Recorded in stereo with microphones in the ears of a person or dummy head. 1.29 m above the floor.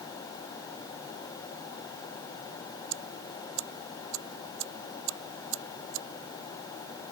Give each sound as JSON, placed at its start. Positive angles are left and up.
{"t": 2.9, "sound": "ticking", "side_deg": -70}